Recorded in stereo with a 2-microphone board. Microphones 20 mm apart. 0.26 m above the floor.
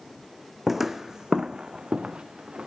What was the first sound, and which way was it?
Footsteps, 10° right (ahead or behind).